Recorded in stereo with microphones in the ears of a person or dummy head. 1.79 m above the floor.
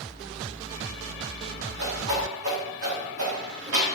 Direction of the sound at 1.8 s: 80° right.